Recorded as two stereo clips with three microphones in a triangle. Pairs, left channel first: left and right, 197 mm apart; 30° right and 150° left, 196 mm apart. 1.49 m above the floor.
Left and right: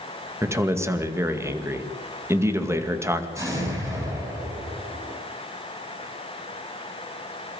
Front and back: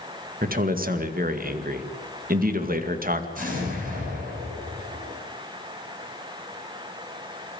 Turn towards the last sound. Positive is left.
turn(degrees=-165)